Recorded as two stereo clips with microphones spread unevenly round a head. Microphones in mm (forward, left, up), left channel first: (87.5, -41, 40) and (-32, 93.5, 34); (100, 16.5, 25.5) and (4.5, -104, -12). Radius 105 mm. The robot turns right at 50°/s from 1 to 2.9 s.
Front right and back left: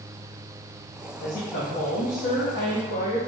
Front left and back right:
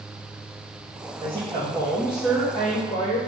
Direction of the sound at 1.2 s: 85° right.